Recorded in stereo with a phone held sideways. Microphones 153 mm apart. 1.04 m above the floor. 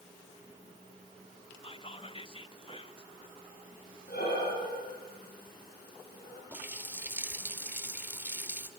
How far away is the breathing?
About 9.5 m.